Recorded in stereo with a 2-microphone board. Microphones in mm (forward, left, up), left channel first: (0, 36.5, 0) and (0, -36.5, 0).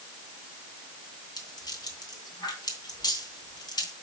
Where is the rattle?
75° left (ahead or behind), 2.5 m.